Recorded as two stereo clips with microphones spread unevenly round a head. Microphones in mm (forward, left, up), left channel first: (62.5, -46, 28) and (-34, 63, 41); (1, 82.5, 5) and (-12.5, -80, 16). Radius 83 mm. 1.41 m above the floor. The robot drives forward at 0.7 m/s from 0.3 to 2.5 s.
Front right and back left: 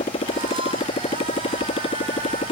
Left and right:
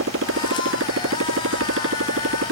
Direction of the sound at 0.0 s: 105° right.